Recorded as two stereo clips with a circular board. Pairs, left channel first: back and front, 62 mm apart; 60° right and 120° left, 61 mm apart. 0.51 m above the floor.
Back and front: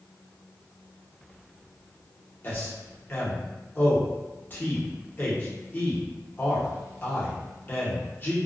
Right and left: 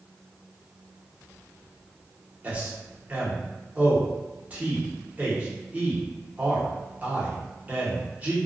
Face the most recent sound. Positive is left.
turn(degrees=165)